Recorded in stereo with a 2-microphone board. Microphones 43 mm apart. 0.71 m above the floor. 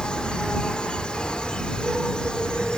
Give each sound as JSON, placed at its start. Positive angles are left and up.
{"t": 0.0, "sound": "an insect", "side_deg": 20}